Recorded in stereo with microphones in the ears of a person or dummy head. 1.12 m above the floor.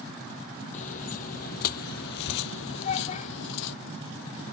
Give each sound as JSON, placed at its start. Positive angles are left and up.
{"t": 0.7, "sound": "footsteps", "side_deg": 45}
{"t": 2.8, "sound": "a child speaking", "side_deg": 40}